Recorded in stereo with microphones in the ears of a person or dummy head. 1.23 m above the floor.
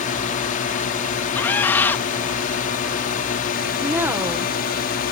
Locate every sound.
0.0 s a drone: 35° left (ahead or behind); by 5.1 s 40° left (ahead or behind)
1.3 s a scream: 10° left (ahead or behind)
3.8 s a woman speaking: 10° right (ahead or behind)